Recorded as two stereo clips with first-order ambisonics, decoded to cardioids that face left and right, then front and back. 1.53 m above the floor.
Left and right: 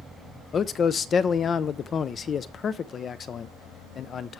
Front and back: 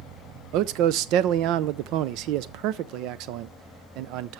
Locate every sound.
0.5 s a man speaking: 155° left, 0.6 m